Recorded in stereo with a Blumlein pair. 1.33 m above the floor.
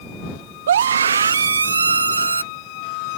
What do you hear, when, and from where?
0.7 s a scream: 60° right; by 2.4 s 80° right